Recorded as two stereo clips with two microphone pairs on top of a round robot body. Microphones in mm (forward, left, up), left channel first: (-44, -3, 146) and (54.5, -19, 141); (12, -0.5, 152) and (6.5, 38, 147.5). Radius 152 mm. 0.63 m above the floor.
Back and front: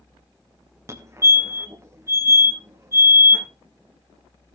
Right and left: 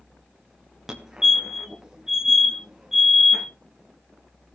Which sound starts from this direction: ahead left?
A fire alarm, at 0.9 s.